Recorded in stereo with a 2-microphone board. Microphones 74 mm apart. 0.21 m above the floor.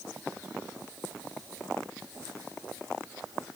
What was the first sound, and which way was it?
Only background noise.